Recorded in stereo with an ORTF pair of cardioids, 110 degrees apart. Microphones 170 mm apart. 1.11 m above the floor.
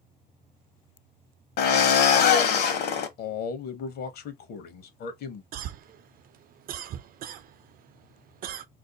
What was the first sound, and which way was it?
A drill, 65° left.